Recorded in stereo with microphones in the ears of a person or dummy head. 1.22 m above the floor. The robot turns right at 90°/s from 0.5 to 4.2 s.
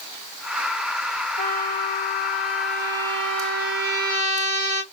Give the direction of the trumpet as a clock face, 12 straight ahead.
10 o'clock.